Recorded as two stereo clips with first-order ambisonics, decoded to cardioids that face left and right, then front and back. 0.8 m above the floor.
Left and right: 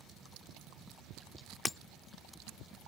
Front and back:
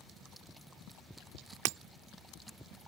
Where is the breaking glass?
170° left.